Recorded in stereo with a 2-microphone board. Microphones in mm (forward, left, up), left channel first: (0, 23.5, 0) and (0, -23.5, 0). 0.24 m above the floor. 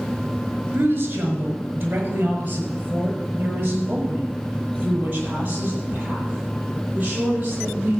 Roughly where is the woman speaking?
Right.